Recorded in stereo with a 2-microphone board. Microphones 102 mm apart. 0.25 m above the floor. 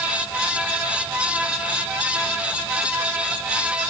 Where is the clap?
I don't hear a clap.